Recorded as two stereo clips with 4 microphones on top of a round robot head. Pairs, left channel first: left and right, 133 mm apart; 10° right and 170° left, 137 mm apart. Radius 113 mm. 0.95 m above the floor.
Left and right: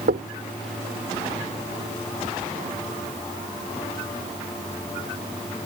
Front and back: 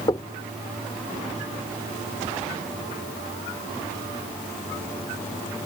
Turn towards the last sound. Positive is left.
turn(degrees=-75)